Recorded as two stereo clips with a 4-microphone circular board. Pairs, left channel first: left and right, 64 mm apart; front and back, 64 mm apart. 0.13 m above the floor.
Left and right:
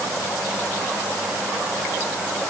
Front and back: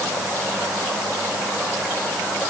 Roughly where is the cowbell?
I don't hear a cowbell.